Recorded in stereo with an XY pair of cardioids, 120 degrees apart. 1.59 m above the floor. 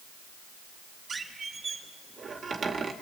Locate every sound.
1.1 s a squeak: 30° right, 2 m